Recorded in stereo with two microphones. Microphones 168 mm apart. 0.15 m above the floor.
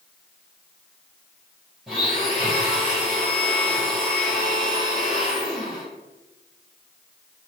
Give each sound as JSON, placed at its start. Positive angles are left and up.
{"t": 1.9, "sound": "a blender", "side_deg": -5, "distance_m": 2.0}